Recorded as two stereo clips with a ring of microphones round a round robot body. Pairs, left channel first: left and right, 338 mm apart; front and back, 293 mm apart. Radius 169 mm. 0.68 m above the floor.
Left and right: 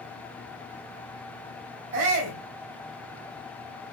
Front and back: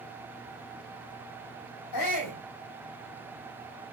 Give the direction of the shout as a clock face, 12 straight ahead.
1 o'clock.